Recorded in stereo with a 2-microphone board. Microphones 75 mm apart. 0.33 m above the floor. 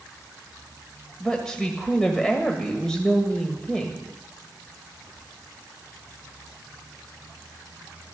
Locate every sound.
1.2 s a woman speaking: 10° left (ahead or behind), 1.8 m